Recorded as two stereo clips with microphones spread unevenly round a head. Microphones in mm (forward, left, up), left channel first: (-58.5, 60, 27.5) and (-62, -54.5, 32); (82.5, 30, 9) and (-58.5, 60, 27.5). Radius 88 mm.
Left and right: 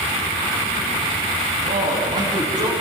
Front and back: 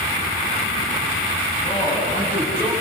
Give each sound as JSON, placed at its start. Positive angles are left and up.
{"t": 1.6, "sound": "a man speaking", "azimuth_deg": -75, "distance_m": 6.5}